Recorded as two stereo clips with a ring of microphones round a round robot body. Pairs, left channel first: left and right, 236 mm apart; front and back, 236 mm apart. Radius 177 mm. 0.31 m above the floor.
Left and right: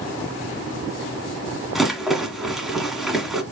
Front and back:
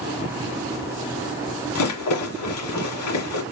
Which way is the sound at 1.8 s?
Straight ahead.